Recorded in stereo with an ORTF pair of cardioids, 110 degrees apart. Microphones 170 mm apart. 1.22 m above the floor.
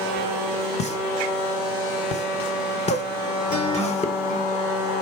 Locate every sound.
0.8 s a pop: 40° left, 1.0 m
3.5 s a guitar: 50° left, 3 m